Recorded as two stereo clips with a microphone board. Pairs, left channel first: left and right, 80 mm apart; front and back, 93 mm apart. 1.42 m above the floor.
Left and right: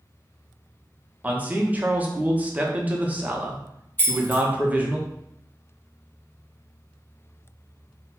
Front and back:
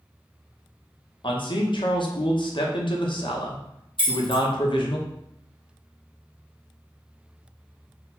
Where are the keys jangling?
25° left, 1.3 m.